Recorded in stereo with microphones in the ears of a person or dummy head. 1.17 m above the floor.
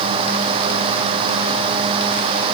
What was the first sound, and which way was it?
Only background noise.